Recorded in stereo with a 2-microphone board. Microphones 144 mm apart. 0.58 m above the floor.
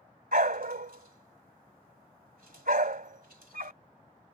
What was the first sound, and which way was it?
A dog barking, 80° right.